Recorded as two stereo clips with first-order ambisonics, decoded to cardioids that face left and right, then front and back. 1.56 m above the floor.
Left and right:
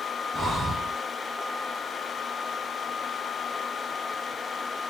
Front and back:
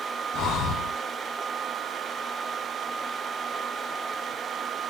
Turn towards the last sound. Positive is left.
turn(degrees=-15)